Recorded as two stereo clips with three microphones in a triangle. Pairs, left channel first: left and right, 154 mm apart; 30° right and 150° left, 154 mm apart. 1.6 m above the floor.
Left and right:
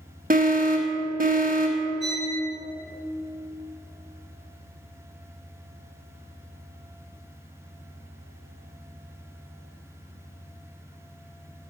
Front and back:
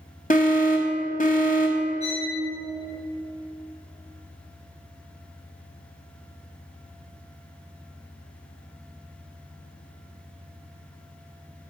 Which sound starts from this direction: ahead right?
An alarm, at 0.3 s.